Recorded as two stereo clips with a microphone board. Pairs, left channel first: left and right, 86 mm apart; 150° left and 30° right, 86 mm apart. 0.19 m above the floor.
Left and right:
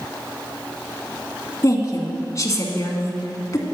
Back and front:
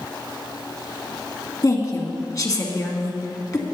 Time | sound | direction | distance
1.6 | a woman speaking | 125° left | 2 m